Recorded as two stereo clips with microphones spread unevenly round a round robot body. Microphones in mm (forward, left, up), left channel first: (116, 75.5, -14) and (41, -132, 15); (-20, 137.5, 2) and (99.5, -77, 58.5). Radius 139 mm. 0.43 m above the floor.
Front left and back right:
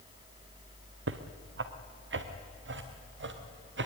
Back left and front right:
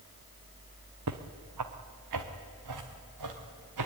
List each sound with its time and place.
1.1 s footsteps: 85° right, 1.6 m; by 3.9 s 75° right, 4 m